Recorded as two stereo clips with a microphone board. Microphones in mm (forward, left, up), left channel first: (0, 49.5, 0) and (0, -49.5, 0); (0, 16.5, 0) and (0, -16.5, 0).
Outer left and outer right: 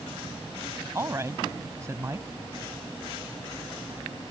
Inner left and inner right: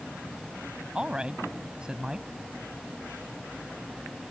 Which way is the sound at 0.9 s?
30° right (ahead or behind).